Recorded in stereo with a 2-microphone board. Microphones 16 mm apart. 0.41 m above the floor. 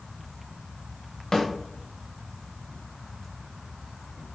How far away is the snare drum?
About 0.9 m.